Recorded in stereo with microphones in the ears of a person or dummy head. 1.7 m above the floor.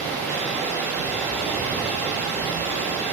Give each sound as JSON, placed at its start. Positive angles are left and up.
{"t": 0.0, "sound": "running water", "side_deg": 5, "distance_m": 1.3}